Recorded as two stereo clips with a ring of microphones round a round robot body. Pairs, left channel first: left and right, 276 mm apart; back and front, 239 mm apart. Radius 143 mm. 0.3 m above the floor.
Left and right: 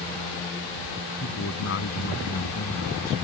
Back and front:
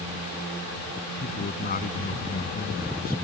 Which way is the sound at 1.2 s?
130° left.